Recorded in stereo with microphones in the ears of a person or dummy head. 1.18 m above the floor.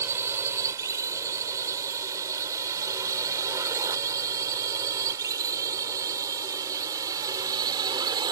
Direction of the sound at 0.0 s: 15° right (ahead or behind).